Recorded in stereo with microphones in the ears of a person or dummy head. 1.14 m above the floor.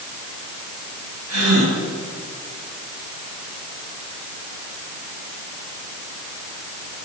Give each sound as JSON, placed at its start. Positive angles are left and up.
{"t": 1.3, "sound": "a gasp", "side_deg": -85, "distance_m": 8.0}